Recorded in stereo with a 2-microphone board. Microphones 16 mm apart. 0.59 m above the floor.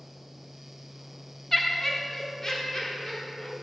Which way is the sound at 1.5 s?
15° left (ahead or behind).